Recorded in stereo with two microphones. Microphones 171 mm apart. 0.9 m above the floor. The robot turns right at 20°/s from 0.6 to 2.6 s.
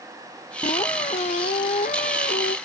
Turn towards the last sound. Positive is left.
turn(degrees=75)